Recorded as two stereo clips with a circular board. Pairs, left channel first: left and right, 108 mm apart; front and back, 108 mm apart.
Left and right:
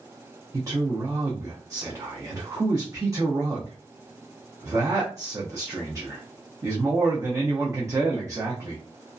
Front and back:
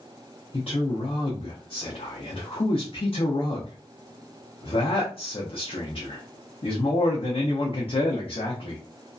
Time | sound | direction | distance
0.5 | a man speaking | 30° right | 0.6 m